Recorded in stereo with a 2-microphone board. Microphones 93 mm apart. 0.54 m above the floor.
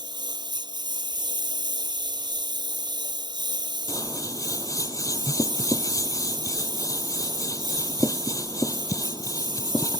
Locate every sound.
0.0 s a lawn mower: 50° right (ahead or behind)
3.9 s scissors: 35° left (ahead or behind)